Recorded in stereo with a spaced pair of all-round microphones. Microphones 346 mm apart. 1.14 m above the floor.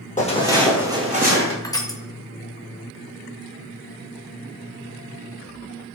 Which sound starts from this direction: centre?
Crushing, at 1.6 s.